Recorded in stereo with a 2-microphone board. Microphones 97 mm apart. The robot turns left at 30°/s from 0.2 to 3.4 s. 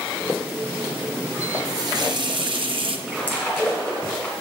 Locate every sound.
1.6 s a running tap: 40° right, 0.6 m; by 3.0 s 80° right, 0.6 m
3.1 s a splash: 10° left (ahead or behind), 2.5 m; by 4.3 s 20° left (ahead or behind), 2.5 m